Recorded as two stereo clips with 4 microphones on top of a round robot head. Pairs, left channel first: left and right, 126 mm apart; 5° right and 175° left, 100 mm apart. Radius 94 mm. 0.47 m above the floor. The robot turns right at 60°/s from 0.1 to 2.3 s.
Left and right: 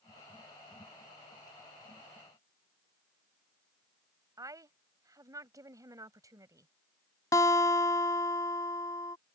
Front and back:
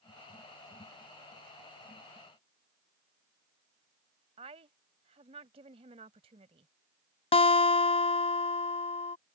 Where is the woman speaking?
155° right.